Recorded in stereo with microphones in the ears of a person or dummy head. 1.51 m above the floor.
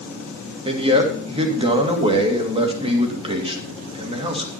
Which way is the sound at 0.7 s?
25° right (ahead or behind).